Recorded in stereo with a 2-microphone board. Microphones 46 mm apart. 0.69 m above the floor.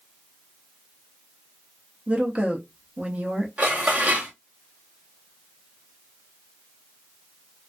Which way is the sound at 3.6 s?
35° right (ahead or behind).